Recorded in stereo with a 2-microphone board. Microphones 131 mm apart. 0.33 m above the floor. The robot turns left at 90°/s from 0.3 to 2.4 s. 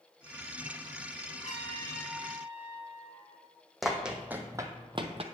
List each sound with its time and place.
1.4 s a trumpet: 70° left, 2 m; by 3.4 s 20° right, 2 m
3.8 s running footsteps: centre (ahead or behind), 1.1 m; by 5.2 s 50° right (ahead or behind), 0.8 m